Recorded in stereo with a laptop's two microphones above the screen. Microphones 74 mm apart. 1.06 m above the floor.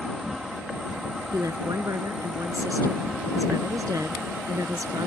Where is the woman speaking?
50° right (ahead or behind).